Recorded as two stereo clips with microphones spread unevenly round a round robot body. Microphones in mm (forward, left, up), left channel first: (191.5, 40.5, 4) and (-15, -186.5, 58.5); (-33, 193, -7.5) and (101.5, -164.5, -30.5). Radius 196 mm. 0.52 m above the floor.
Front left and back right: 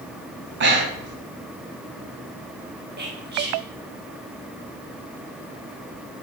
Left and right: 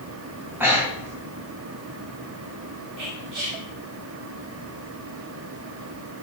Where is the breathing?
140° right, 0.7 m.